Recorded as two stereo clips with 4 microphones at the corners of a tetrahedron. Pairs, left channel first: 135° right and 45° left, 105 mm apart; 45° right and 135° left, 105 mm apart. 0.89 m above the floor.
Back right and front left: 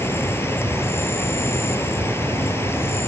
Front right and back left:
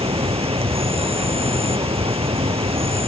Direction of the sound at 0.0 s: 160° left.